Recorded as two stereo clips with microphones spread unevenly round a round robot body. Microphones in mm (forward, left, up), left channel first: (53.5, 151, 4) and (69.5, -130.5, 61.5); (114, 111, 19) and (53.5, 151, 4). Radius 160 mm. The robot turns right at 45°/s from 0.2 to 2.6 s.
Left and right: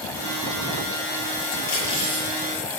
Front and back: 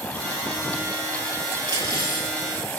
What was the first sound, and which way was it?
Cutlery clinking, 135° left.